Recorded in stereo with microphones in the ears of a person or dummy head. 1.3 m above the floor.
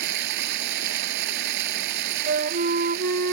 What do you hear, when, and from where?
0.0 s running water: 60° right (ahead or behind)
2.3 s a flute: 45° right (ahead or behind)